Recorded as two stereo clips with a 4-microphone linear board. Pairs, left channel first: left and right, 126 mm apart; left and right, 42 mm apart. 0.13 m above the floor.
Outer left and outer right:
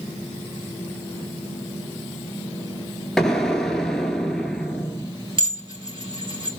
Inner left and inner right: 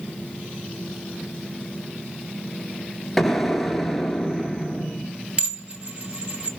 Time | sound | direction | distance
3.2 | an explosion | 5° left (ahead or behind) | 0.7 m
5.4 | dishes clattering | 40° right (ahead or behind) | 1.5 m